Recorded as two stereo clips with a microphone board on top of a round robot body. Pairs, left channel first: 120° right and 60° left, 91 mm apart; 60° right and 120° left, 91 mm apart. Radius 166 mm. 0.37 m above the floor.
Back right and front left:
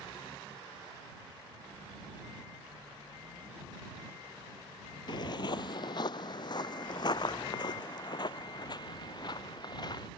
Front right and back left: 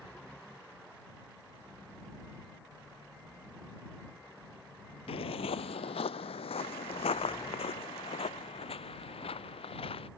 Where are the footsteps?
80° right; by 10.1 s 75° right.